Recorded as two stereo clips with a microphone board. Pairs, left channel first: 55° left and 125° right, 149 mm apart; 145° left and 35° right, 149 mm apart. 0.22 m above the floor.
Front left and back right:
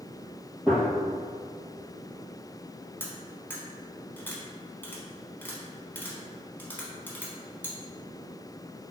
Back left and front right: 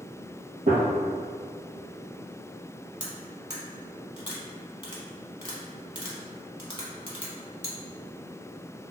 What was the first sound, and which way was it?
A gunshot, 40° right.